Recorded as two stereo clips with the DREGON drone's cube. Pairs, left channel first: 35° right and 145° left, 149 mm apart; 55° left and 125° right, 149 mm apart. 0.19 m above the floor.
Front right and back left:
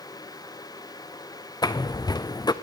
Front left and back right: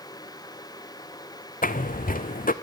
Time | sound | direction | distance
1.6 | footsteps | 30° left | 0.6 m